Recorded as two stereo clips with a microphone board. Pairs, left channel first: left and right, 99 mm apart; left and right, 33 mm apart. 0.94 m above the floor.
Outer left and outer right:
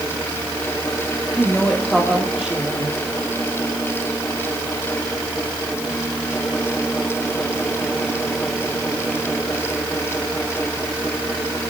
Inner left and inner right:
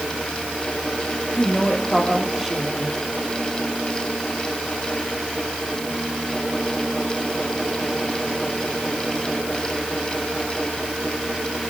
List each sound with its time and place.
1.3 s a woman speaking: 10° left (ahead or behind), 3 m; by 3.0 s 15° right (ahead or behind), 3 m